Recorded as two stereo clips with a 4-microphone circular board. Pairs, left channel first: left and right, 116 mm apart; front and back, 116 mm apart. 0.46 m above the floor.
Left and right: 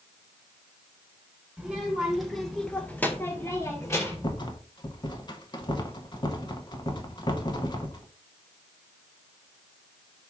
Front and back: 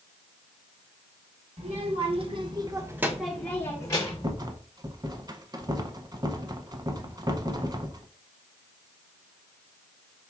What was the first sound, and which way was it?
A child speaking, 170° right.